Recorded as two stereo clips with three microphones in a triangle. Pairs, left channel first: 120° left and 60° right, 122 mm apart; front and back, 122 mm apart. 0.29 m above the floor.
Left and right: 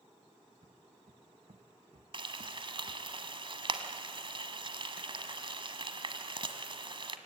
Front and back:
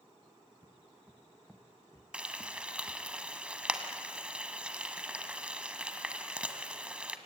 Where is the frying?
100° right, 1.3 m.